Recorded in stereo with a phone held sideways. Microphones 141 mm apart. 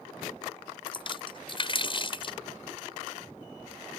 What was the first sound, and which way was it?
A splash, 40° left (ahead or behind).